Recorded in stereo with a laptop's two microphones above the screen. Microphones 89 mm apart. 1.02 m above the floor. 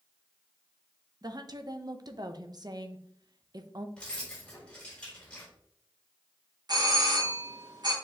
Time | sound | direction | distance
1.2 | a woman speaking | 50° right (ahead or behind) | 0.9 m
4.0 | keys jangling | 10° left (ahead or behind) | 3 m
6.7 | a doorbell | 50° right (ahead or behind) | 1.9 m